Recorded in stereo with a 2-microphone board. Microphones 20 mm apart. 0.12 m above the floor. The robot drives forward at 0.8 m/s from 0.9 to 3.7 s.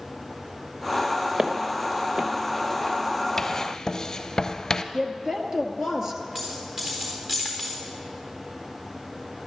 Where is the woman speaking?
30° right (ahead or behind), 2 m.